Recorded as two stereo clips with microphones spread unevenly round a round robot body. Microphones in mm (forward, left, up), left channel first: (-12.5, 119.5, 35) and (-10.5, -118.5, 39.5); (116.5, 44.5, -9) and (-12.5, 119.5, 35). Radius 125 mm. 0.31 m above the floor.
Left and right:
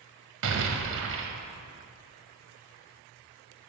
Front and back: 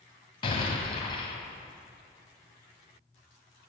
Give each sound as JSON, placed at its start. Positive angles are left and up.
{"t": 0.4, "sound": "an explosion", "azimuth_deg": -75, "distance_m": 1.6}